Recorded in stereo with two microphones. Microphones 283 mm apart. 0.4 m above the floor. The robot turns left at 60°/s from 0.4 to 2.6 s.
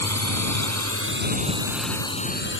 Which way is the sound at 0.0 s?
70° right (ahead or behind).